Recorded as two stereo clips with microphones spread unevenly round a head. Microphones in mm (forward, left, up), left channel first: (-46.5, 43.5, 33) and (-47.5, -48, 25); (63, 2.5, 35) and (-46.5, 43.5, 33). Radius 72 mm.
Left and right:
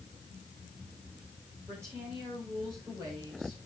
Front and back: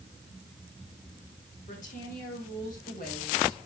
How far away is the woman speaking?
About 5 m.